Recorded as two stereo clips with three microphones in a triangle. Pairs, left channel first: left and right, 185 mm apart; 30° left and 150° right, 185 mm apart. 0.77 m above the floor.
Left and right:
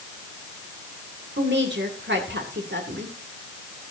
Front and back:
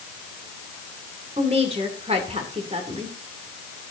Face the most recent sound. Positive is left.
turn(degrees=-95)